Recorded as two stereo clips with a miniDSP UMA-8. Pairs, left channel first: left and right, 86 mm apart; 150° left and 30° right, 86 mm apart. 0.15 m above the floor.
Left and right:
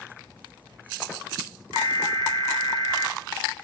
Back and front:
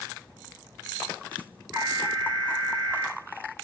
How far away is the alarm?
About 6.5 m.